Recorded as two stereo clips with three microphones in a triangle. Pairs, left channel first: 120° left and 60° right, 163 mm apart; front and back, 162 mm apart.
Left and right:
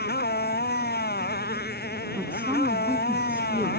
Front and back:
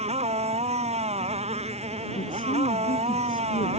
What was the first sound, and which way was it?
A motorcycle, 130° left.